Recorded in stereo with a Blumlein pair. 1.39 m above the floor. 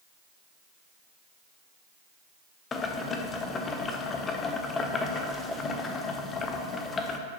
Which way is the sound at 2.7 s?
20° left.